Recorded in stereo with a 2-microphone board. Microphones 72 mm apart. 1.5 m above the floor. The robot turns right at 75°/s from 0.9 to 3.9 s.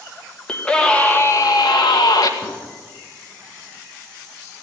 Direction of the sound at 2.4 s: Centre (ahead or behind).